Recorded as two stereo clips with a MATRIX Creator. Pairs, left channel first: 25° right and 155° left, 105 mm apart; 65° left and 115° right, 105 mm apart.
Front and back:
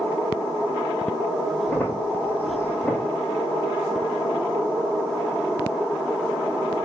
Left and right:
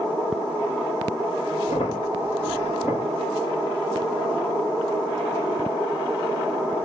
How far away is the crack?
About 4 m.